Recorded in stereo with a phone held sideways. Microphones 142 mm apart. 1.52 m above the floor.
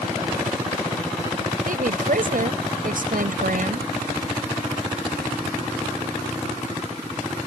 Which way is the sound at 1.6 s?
75° right (ahead or behind).